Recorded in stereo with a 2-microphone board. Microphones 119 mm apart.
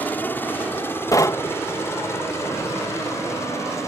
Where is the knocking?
30° left (ahead or behind).